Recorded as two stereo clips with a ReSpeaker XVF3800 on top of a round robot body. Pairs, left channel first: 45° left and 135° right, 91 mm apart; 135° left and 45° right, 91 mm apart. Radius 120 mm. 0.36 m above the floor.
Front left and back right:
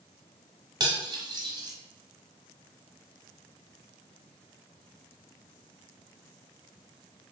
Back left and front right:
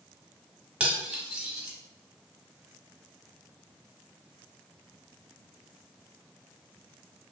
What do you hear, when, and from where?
0.8 s cutlery clinking: 120° right, 0.8 m